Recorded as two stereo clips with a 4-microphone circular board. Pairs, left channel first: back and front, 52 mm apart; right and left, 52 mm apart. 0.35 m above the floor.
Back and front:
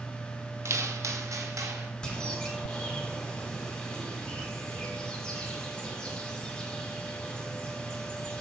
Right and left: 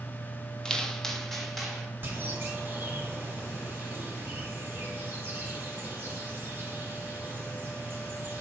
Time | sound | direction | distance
0.7 | footsteps | 15° right | 0.6 m
2.0 | a bird | 120° left | 1.7 m